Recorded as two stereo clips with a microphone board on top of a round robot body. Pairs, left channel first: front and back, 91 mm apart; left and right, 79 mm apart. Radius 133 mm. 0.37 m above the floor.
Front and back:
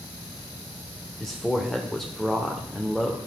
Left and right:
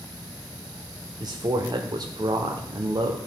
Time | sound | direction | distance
1.2 | a man speaking | 85° right | 1.3 m